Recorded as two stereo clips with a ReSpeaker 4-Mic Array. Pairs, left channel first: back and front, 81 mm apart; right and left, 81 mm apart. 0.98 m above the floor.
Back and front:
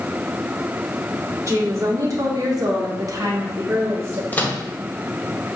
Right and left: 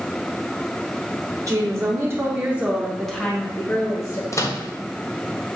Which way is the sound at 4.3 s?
120° right.